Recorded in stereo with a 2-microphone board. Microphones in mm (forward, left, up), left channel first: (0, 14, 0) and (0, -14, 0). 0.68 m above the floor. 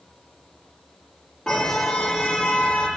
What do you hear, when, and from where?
1.5 s a car horn: 20° left (ahead or behind), 9 m